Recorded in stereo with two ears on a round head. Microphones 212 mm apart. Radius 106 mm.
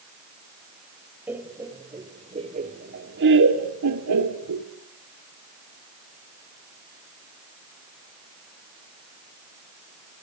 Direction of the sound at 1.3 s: 10° right (ahead or behind).